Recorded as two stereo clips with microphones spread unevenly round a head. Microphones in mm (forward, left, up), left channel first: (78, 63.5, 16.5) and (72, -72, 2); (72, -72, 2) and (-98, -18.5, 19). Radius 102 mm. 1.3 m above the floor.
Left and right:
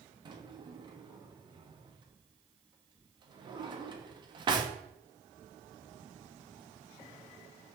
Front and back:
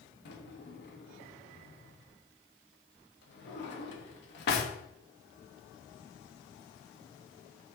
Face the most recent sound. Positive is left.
turn(degrees=-35)